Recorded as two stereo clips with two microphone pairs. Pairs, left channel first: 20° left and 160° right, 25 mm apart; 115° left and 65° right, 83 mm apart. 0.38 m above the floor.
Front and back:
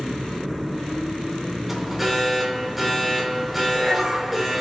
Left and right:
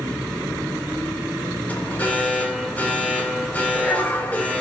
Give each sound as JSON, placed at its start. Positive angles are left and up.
{"t": 1.7, "sound": "an alarm", "azimuth_deg": 125, "distance_m": 1.9}